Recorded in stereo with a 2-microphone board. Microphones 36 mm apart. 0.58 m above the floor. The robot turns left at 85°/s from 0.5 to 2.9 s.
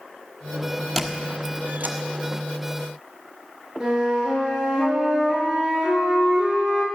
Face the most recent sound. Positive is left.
turn(degrees=-20)  # may be behind; listen again after turning